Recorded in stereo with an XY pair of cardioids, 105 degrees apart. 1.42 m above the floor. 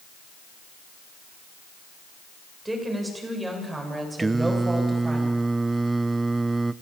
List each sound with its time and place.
2.6 s a woman speaking: 10° right, 7 m; by 5.2 s 15° right, 8.5 m
4.2 s singing: 20° right, 0.6 m